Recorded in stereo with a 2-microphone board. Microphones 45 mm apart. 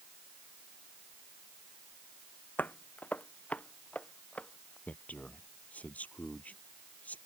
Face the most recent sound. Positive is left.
turn(degrees=35)  # may be behind; listen again after turning